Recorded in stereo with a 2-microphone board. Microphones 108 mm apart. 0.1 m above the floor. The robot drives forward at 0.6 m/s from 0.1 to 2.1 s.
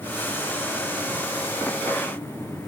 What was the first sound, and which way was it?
Only background noise.